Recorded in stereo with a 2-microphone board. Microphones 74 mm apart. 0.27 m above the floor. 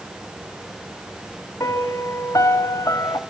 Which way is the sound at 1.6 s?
50° left (ahead or behind).